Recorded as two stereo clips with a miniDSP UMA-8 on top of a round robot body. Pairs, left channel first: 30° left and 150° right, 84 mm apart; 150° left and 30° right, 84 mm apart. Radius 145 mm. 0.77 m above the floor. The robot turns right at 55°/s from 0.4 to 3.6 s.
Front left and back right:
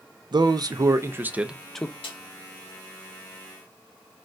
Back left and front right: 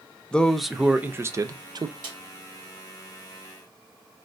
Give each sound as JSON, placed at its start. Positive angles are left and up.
{"t": 0.3, "sound": "a man speaking", "azimuth_deg": -130, "distance_m": 0.5}
{"t": 2.0, "sound": "a snare drum", "azimuth_deg": 10, "distance_m": 1.9}